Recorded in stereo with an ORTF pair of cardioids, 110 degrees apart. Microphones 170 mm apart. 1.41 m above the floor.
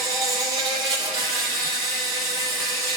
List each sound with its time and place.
0.0 s an insect: 25° right, 2 m